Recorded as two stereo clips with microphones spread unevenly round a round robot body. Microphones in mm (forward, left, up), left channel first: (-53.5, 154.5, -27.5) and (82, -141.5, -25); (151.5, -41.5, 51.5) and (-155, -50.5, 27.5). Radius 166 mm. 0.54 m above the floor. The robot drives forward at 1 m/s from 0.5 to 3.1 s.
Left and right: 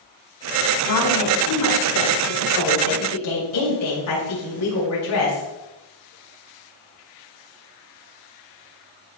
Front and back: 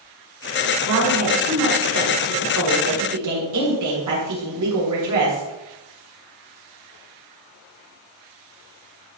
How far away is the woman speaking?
About 5.5 m.